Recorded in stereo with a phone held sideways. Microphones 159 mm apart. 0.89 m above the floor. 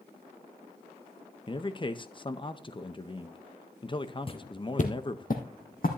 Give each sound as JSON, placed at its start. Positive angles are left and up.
{"t": 1.5, "sound": "a man speaking", "side_deg": 30, "distance_m": 0.7}
{"t": 4.3, "sound": "footsteps", "side_deg": 35, "distance_m": 1.0}